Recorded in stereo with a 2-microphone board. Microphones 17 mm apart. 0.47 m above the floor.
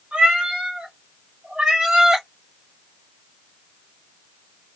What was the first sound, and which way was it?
A cat meowing, 85° right.